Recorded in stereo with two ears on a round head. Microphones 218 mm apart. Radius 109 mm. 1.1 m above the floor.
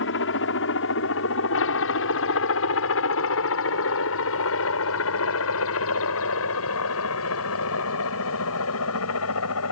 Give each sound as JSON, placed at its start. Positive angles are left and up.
{"t": 0.0, "sound": "a helicopter", "side_deg": 55}